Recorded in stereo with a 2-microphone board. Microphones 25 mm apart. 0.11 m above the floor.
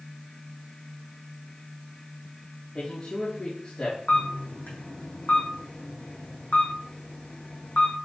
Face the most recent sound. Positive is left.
turn(degrees=75)  # may be behind; listen again after turning